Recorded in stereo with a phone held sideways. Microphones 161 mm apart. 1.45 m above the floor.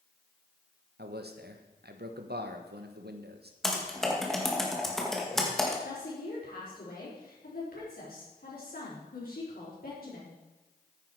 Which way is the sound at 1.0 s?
85° right.